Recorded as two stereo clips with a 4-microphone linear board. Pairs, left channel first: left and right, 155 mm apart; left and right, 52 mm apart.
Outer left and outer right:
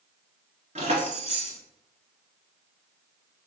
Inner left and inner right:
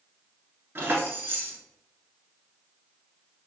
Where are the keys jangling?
45° right (ahead or behind), 1.2 m.